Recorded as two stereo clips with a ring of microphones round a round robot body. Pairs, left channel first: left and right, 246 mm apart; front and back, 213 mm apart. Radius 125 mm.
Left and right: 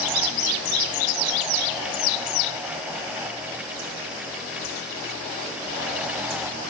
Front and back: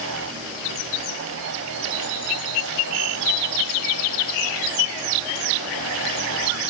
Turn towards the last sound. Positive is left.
No sound to turn to.